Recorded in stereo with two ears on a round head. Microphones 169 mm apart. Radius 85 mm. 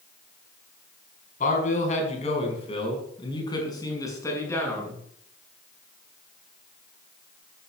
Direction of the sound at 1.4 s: 45° left (ahead or behind).